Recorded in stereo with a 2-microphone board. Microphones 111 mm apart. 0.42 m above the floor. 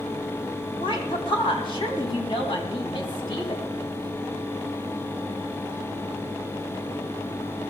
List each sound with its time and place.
0.8 s a woman speaking: 50° left (ahead or behind), 3.5 m